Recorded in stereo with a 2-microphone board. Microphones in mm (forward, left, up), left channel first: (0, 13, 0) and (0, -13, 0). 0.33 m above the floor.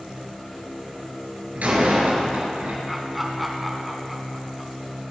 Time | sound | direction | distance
1.6 | a door slam | 70° right (ahead or behind) | 3.5 m
2.9 | laughter | 5° right (ahead or behind) | 3 m